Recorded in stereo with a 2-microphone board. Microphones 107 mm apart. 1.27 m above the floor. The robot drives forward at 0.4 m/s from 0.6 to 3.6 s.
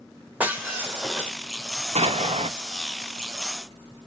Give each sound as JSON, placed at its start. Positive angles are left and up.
{"t": 0.4, "sound": "breaking glass", "side_deg": -15, "distance_m": 1.8}
{"t": 1.9, "sound": "an explosion", "side_deg": -80, "distance_m": 0.9}